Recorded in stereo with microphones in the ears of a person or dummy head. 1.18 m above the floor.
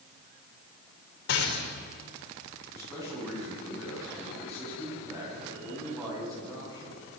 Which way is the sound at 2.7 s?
15° right (ahead or behind).